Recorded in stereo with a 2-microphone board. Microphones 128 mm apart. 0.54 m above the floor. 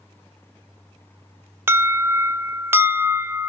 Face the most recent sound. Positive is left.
turn(degrees=-20)  # may be behind; listen again after turning